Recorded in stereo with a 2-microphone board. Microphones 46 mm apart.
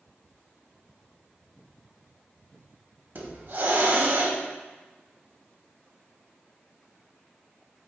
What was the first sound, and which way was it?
A hiss, 50° right (ahead or behind).